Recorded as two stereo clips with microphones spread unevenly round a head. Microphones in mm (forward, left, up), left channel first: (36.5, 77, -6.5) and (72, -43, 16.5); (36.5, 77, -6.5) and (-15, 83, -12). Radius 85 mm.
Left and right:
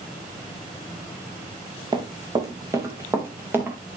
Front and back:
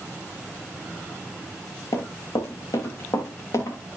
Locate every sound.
1.9 s running footsteps: 20° right, 3.5 m; by 3.8 s straight ahead, 5 m